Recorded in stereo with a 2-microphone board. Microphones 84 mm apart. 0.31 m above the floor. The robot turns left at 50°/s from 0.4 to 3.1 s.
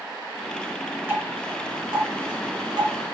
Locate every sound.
1.1 s dripping: 20° right (ahead or behind), 1.8 m; by 3.0 s 45° right (ahead or behind), 1.8 m